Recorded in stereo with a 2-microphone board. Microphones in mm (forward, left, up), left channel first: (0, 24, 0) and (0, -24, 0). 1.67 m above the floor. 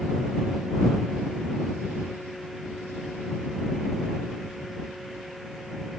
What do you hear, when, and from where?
Only background noise.